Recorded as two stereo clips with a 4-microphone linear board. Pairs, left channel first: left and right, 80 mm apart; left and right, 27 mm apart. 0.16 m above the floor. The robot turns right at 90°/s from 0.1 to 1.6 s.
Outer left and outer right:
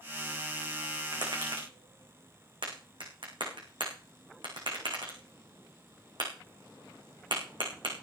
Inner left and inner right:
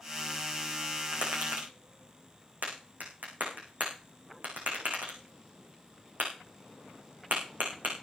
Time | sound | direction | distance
1.1 | tapping | 50° right (ahead or behind) | 7 m